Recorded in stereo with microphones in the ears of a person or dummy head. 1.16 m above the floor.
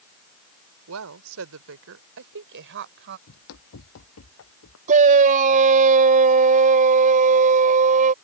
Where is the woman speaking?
70° right (ahead or behind); by 3.2 s 50° right (ahead or behind).